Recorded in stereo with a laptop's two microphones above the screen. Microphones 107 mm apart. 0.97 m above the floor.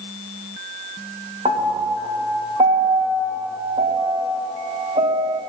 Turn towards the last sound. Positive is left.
turn(degrees=-85)